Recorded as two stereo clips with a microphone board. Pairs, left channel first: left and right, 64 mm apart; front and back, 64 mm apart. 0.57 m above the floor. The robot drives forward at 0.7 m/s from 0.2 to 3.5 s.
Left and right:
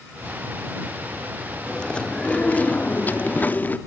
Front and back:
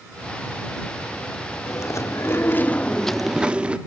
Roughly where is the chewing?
Ahead.